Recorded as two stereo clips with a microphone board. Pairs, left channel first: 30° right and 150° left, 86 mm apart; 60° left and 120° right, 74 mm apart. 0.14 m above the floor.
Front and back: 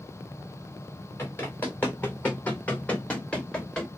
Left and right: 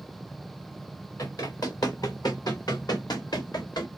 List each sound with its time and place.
1.2 s running footsteps: 30° left, 3 m; by 3.9 s 50° left, 1.9 m